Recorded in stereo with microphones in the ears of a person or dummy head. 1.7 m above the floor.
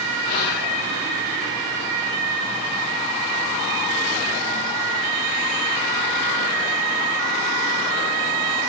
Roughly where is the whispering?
Left.